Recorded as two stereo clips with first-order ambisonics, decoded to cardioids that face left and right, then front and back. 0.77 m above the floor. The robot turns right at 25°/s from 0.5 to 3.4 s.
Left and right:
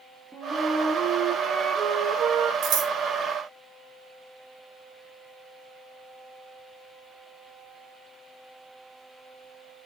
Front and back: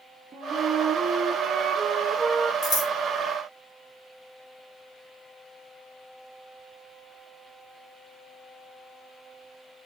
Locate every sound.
0.3 s a flute: 160° right, 0.5 m; by 2.5 s 110° right, 0.5 m
2.6 s scissors: 55° right, 1.3 m; by 2.9 s 50° right, 1.3 m